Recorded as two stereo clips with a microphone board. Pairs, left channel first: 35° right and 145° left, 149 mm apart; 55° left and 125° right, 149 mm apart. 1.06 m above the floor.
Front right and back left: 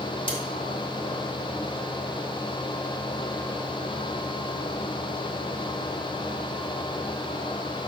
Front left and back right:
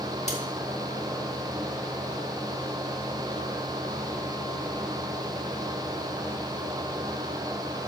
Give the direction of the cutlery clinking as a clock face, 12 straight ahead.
11 o'clock.